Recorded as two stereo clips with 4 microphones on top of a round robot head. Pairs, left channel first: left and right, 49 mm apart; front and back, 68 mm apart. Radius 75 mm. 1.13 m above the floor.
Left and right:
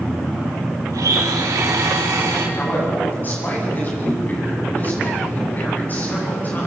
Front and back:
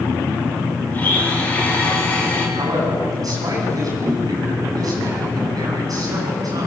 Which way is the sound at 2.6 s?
145° left.